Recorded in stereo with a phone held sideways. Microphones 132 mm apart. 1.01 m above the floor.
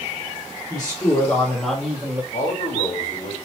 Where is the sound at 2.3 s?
70° left (ahead or behind), 1.9 m.